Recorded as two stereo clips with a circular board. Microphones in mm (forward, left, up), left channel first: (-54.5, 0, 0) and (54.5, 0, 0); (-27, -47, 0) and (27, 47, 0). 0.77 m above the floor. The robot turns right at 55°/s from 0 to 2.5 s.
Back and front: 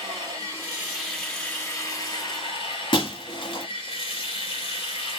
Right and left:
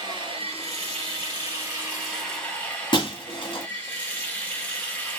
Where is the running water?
25° left, 1.5 m; by 5.2 s 160° left, 1.5 m.